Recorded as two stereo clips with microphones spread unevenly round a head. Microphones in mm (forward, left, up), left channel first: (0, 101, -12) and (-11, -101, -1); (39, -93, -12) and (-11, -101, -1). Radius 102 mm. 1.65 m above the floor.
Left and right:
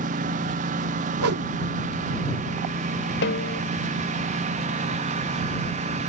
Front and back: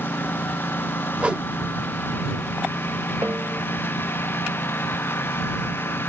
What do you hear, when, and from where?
0.0 s a lawn mower: 40° right; by 6.1 s 35° right
1.2 s a whoosh: 105° right
3.2 s a snare drum: 125° left